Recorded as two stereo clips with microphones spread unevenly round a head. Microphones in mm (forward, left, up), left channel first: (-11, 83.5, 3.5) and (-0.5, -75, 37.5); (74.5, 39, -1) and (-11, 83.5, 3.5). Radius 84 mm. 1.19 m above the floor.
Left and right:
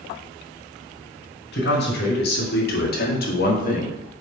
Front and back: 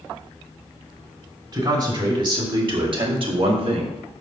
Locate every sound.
1.5 s a man speaking: 110° left, 3 m; by 4.0 s 135° left, 1.8 m